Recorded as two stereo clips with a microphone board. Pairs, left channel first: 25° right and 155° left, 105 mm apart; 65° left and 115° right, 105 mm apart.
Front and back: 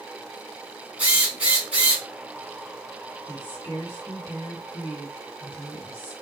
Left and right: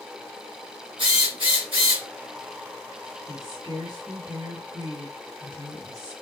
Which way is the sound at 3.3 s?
145° right.